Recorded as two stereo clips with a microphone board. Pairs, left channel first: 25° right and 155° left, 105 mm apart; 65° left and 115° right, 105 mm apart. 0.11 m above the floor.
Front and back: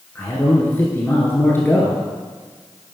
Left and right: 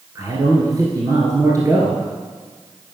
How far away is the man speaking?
About 1.3 m.